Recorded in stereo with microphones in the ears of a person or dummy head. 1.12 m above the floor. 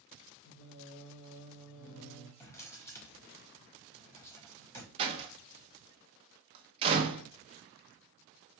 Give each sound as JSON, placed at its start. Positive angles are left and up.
{"t": 0.5, "sound": "singing", "side_deg": 70, "distance_m": 0.8}
{"t": 2.4, "sound": "a drawer", "side_deg": 15, "distance_m": 0.9}
{"t": 5.0, "sound": "a door slam", "side_deg": -30, "distance_m": 0.8}